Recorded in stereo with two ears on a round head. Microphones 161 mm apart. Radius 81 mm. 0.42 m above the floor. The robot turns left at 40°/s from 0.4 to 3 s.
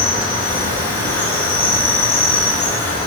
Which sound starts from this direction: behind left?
An insect, at 0.0 s.